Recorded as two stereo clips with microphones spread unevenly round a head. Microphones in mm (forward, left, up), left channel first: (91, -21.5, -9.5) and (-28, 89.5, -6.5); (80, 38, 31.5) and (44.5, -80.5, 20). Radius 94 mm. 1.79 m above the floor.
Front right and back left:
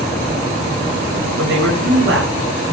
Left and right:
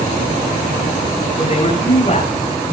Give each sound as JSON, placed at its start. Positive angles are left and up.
{"t": 1.4, "sound": "a man speaking", "azimuth_deg": 135, "distance_m": 8.5}